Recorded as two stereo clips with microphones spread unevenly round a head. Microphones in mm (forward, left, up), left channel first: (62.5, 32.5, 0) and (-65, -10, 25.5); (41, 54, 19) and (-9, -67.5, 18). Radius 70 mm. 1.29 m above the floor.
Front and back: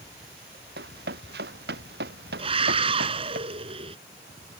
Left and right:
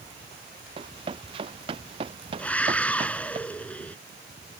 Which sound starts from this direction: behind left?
A scream, at 2.4 s.